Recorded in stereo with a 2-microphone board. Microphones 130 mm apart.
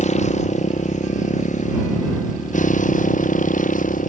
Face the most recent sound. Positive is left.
turn(degrees=85)